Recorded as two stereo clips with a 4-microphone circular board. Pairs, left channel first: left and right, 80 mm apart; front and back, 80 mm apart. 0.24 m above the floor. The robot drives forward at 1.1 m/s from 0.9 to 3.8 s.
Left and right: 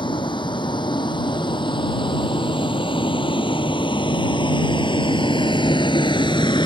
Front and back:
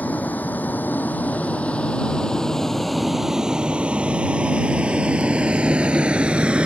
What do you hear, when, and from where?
0.0 s a vehicle: 70° left; by 6.7 s 100° left